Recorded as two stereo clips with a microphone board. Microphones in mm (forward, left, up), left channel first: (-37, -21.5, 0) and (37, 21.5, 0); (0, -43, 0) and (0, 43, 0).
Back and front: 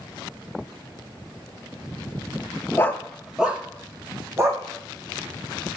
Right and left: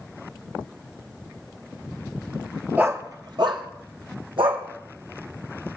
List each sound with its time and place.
2.8 s a dog barking: 155° left, 1.0 m; by 4.6 s 85° left, 3 m